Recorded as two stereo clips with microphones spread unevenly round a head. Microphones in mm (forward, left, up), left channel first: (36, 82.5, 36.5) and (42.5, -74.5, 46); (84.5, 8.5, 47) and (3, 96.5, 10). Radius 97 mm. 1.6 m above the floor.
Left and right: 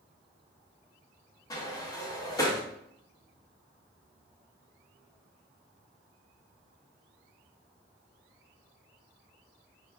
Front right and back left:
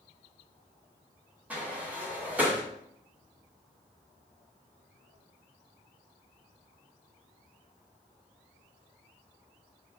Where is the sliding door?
35° left, 0.6 m.